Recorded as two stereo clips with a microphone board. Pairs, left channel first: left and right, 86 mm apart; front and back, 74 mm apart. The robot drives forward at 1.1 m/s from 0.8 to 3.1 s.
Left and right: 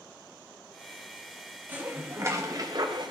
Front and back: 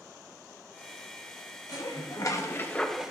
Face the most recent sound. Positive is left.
turn(degrees=-105)